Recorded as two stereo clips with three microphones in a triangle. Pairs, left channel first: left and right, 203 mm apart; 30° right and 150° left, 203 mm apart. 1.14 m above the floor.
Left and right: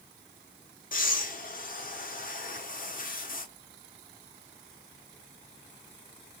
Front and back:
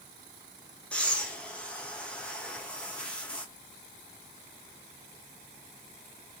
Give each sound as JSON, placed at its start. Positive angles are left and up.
{"t": 0.9, "sound": "breathing", "azimuth_deg": 55, "distance_m": 0.6}